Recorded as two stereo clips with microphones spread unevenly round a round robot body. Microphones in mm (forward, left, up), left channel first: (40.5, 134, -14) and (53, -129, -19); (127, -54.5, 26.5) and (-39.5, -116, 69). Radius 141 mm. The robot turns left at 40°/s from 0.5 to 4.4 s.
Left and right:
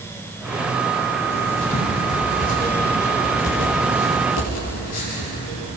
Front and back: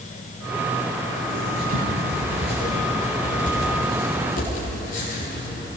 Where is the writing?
170° right, 9 m; by 5.7 s 70° left, 9 m.